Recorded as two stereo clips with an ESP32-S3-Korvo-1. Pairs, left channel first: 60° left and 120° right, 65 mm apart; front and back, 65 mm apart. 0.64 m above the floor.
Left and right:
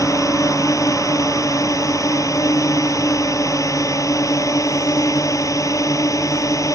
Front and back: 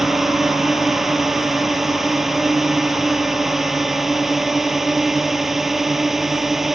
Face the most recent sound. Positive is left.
turn(degrees=95)